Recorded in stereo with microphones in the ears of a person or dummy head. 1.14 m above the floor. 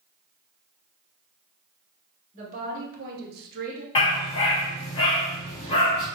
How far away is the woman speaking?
About 2 m.